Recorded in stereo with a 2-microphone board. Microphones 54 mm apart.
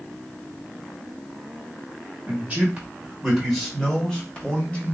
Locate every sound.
2.3 s a man speaking: 30° right (ahead or behind), 1.3 m; by 4.9 s 25° left (ahead or behind), 1.7 m